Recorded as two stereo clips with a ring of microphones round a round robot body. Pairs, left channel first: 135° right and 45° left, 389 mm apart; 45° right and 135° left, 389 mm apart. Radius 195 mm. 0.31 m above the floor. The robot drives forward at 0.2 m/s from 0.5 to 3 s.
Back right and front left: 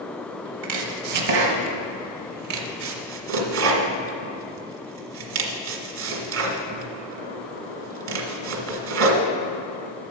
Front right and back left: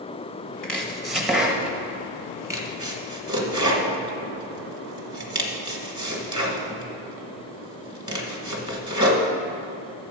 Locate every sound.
0.6 s chopping: 40° left, 1.6 m; by 9.3 s 65° left, 1.4 m